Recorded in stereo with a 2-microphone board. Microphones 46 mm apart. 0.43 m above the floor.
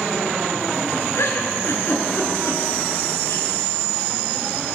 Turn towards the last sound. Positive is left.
turn(degrees=70)  # may be behind; listen again after turning